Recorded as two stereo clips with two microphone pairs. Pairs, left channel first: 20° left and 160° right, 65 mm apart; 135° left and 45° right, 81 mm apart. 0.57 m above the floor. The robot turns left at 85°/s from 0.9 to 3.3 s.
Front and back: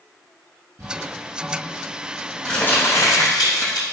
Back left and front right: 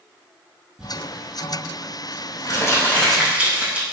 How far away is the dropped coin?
I don't hear a dropped coin.